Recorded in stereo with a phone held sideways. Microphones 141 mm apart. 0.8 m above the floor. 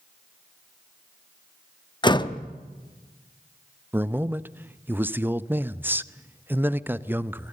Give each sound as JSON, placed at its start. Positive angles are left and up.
{"t": 2.0, "sound": "a door slam", "side_deg": 30, "distance_m": 0.9}
{"t": 3.9, "sound": "a man speaking", "side_deg": -15, "distance_m": 0.5}